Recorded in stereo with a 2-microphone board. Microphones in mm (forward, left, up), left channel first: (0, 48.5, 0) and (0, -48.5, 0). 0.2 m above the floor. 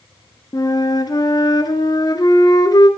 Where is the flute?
40° left (ahead or behind), 0.9 m.